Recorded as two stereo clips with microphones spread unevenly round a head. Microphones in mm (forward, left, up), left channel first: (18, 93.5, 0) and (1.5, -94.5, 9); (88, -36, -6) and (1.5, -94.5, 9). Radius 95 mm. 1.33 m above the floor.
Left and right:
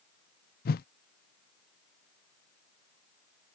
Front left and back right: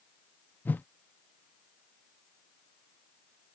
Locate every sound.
0.7 s a whoosh: 100° left